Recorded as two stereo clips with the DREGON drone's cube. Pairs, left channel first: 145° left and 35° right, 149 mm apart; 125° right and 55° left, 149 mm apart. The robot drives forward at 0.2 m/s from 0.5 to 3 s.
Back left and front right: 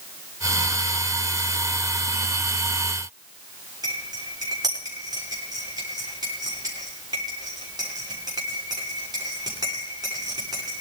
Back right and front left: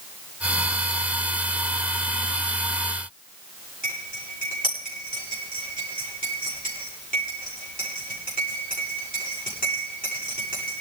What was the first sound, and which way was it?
Cutlery clinking, 100° right.